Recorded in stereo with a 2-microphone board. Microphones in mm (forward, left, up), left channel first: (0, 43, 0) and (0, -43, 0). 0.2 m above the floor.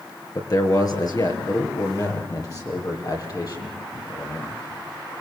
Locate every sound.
0.3 s a man speaking: 50° left (ahead or behind), 4 m; by 4.6 s 45° left (ahead or behind), 9 m